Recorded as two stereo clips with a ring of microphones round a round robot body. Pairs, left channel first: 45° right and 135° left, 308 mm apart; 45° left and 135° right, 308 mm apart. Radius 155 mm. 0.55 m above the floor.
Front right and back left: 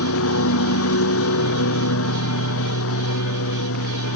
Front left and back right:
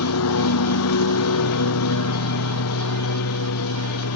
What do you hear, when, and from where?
0.0 s a lawn mower: straight ahead